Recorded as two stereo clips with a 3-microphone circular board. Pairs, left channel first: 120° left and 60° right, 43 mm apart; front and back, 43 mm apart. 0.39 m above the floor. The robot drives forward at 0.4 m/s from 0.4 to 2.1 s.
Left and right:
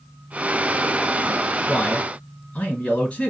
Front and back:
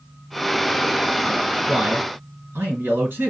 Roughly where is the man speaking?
Behind.